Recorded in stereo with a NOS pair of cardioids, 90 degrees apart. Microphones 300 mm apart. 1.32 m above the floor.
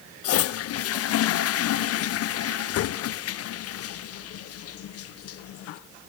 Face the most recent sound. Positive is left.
turn(degrees=55)